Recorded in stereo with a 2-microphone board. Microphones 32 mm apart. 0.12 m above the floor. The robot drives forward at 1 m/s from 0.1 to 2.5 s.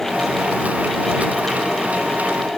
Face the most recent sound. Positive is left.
No sound to turn to.